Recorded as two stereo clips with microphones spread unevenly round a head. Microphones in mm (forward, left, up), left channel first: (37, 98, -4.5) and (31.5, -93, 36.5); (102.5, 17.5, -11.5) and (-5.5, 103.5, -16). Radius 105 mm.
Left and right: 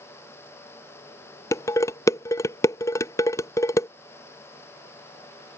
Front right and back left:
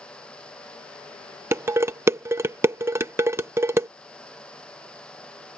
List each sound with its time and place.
1.5 s dishes clattering: 175° left